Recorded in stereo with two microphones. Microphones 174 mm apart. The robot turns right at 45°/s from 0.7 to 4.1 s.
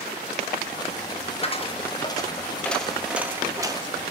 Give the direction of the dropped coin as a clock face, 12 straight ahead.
8 o'clock.